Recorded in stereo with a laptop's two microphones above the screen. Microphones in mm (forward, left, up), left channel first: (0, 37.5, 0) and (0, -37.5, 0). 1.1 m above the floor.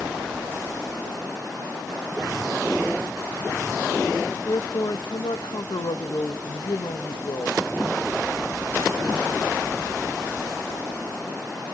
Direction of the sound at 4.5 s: 80° left.